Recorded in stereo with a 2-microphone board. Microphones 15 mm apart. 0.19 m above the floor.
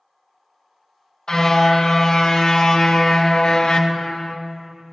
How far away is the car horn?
About 3.5 m.